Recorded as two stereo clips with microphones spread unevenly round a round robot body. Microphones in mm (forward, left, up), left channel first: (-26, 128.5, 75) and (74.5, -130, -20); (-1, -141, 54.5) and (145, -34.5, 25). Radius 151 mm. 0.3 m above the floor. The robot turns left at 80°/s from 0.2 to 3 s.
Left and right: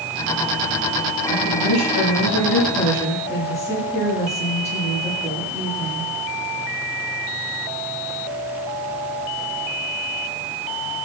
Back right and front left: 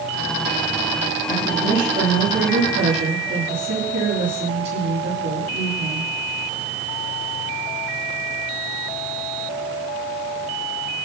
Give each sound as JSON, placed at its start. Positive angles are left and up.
{"t": 1.3, "sound": "a woman speaking", "azimuth_deg": 165, "distance_m": 8.5}